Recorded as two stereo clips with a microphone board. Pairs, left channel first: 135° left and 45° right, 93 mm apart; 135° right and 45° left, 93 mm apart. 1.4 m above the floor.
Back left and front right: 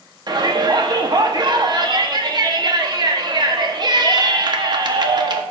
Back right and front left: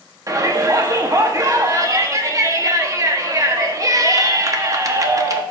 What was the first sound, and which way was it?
A shout, 10° right.